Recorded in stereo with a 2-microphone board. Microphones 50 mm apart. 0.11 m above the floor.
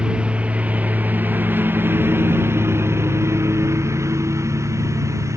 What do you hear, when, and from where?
0.0 s a lawn mower: 20° right (ahead or behind); by 5.4 s 85° right